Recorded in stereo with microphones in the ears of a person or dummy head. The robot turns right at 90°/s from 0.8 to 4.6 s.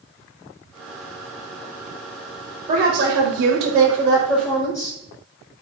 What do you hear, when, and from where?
2.7 s a woman speaking: 155° right, 1.0 m; by 5.0 s 15° left, 1.0 m